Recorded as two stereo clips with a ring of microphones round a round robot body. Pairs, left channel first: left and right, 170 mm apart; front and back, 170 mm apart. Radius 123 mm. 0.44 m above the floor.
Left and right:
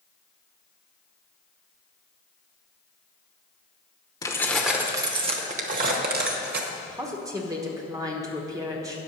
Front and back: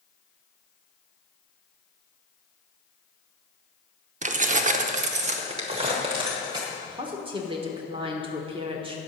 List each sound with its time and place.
4.2 s keys jangling: 155° left, 0.7 m; by 6.6 s 110° right, 1.2 m
6.7 s a woman speaking: 145° right, 1.2 m